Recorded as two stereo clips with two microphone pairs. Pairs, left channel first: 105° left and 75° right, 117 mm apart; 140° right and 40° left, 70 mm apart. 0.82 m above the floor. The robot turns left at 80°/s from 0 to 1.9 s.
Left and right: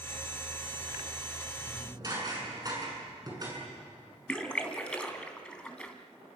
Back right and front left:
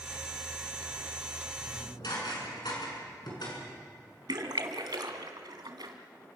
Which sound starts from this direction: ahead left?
A splash, at 4.3 s.